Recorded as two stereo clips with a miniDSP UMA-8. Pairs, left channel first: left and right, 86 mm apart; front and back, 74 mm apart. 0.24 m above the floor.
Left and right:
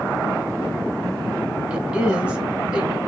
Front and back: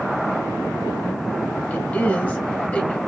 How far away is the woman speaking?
About 1.0 m.